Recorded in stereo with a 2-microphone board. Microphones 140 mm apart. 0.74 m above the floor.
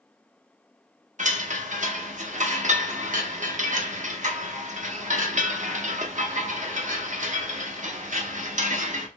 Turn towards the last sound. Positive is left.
turn(degrees=-60)  # may be behind; listen again after turning